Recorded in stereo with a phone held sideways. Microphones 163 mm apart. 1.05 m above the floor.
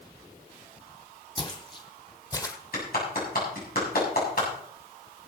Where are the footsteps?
35° left (ahead or behind), 2.5 m; by 2.6 s 20° left (ahead or behind), 1.8 m.